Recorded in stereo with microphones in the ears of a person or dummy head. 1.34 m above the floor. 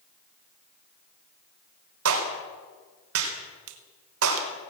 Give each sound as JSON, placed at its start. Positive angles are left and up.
{"t": 2.0, "sound": "a clap", "side_deg": -85, "distance_m": 4.0}
{"t": 3.7, "sound": "a finger snap", "side_deg": -75, "distance_m": 1.8}